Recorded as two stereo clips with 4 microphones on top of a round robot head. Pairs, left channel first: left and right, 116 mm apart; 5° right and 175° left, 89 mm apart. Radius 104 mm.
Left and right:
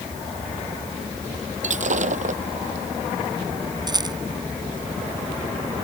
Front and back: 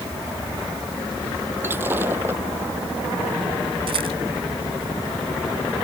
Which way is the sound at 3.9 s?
145° right.